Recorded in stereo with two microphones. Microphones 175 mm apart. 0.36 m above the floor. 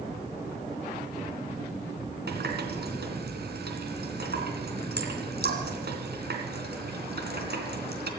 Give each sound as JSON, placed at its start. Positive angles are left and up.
{"t": 2.3, "sound": "a running tap", "side_deg": -70, "distance_m": 3.0}